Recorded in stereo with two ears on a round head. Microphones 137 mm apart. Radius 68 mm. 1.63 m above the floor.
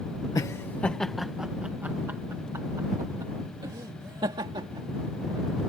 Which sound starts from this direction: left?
Laughter, at 0.3 s.